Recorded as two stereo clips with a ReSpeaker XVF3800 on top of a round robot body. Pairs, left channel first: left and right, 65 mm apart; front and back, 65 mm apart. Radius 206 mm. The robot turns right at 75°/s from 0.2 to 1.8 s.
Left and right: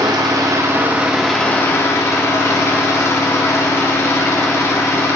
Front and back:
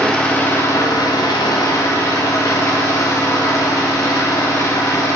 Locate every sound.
0.0 s an engine running: 75° right, 1.3 m; by 5.2 s 45° left, 1.3 m